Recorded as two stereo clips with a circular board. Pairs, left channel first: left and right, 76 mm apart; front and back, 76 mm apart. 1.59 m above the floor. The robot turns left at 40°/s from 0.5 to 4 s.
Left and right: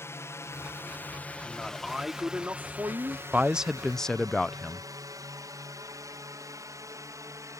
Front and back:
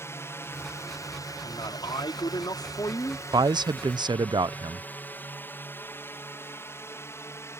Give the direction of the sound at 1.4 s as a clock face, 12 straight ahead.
11 o'clock.